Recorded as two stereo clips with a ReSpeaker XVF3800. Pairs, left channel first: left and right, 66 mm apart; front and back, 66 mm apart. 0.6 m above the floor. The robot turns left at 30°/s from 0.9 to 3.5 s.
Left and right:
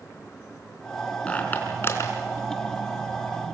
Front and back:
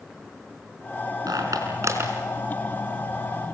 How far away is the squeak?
About 4.5 m.